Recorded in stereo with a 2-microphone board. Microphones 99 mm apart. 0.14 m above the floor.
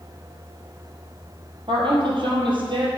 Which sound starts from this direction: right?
A woman speaking, at 1.7 s.